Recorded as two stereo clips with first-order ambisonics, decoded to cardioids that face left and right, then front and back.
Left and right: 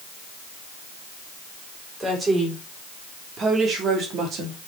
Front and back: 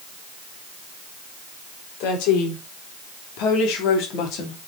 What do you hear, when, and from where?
2.0 s a woman speaking: 15° right, 4.5 m; by 4.6 s 40° right, 3 m